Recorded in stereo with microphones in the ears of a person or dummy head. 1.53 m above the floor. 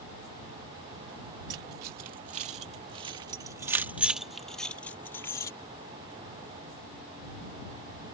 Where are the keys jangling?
55° right (ahead or behind); by 5.5 s 15° left (ahead or behind).